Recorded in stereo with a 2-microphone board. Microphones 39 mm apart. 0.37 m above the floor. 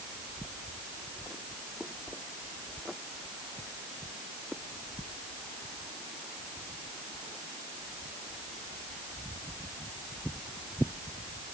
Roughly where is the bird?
I don't hear a bird.